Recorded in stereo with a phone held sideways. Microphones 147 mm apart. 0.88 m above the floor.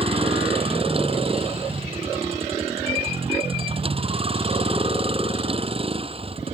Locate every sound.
0.0 s a vehicle: 40° right (ahead or behind)